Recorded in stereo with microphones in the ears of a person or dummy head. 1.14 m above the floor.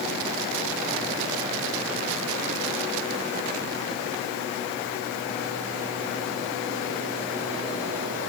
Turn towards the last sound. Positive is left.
No sound to turn to.